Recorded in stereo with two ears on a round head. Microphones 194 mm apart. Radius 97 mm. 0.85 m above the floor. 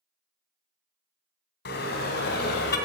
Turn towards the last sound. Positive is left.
turn(degrees=50)  # may be behind; listen again after turning